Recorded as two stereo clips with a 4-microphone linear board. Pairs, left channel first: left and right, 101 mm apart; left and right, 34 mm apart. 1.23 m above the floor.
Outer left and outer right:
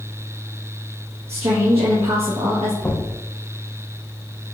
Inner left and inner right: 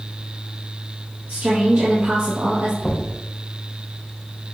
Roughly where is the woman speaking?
Right.